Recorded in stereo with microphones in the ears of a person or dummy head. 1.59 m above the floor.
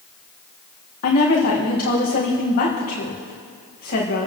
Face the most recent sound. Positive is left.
turn(degrees=45)  # may be behind; listen again after turning